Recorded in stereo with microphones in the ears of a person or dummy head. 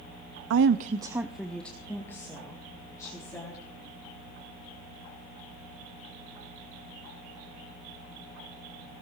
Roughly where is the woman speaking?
Right.